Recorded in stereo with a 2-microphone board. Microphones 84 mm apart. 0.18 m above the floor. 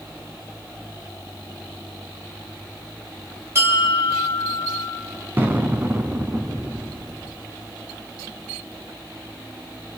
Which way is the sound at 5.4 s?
25° right (ahead or behind).